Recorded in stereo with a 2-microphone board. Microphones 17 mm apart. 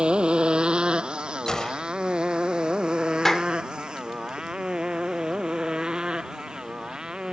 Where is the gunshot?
40° left (ahead or behind).